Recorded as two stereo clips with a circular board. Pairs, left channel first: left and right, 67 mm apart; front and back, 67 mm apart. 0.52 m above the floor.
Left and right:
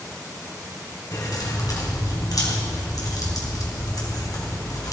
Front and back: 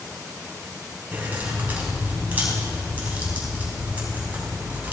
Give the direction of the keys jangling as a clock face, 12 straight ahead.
8 o'clock.